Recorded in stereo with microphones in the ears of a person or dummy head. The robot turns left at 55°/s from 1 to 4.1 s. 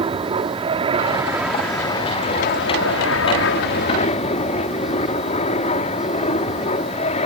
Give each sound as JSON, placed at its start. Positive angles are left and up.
{"t": 0.0, "sound": "an aircraft", "azimuth_deg": -150}